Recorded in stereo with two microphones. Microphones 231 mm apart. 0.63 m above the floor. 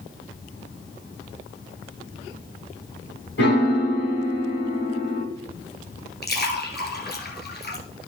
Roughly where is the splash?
Left.